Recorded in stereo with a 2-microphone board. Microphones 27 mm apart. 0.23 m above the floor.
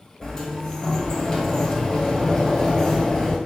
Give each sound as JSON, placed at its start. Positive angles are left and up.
{"t": 0.2, "sound": "a sliding door", "side_deg": 15, "distance_m": 0.9}